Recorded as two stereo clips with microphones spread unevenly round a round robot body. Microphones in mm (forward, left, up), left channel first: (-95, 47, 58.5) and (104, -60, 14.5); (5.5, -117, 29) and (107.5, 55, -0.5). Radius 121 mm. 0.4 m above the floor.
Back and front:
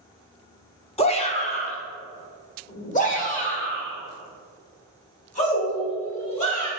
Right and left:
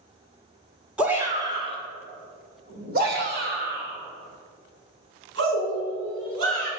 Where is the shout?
105° left, 1.3 m; by 6.7 s 90° left, 5 m.